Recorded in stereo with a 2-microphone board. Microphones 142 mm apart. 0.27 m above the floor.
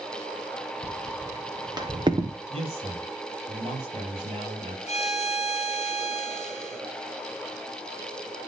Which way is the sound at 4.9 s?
50° left (ahead or behind).